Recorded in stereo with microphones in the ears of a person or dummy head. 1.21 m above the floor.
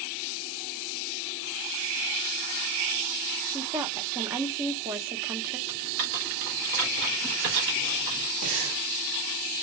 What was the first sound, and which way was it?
A woman speaking, 15° right (ahead or behind).